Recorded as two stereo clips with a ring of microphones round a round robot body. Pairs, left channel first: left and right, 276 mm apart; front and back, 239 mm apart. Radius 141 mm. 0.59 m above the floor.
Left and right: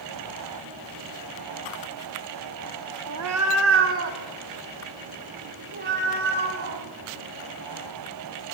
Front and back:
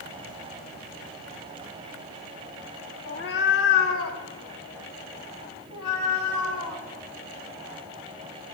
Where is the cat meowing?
60° right, 0.7 m; by 6.8 s 35° right, 3 m.